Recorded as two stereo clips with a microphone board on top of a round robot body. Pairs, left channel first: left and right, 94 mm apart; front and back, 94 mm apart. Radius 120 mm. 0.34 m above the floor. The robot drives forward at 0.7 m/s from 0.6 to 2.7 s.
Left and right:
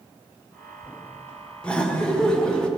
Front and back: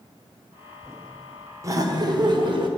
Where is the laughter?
165° left, 1.2 m; by 2.7 s 170° left, 1.7 m.